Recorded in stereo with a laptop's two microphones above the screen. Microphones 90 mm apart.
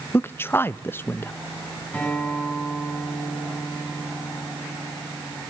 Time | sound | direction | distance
0.1 | a man speaking | 25° left (ahead or behind) | 0.7 m
1.9 | a guitar | 15° left (ahead or behind) | 6.5 m